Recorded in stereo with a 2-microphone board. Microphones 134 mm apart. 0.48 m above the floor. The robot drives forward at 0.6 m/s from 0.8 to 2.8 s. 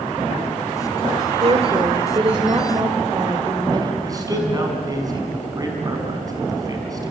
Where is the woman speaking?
45° right (ahead or behind), 1.5 m; by 3.9 s 35° right (ahead or behind), 1.9 m.